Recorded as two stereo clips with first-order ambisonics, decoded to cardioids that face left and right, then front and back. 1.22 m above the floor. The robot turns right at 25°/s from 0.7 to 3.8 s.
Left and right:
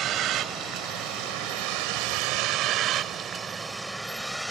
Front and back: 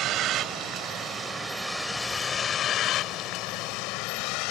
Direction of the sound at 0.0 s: 135° right.